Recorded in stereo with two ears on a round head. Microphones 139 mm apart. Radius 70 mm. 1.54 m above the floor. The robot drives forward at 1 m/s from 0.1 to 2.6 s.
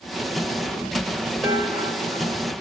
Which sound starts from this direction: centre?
Dishes clattering, at 1.4 s.